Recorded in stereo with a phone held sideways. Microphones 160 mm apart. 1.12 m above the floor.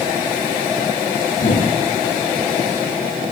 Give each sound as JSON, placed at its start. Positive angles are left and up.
{"t": 1.3, "sound": "a whoosh", "side_deg": 60, "distance_m": 8.5}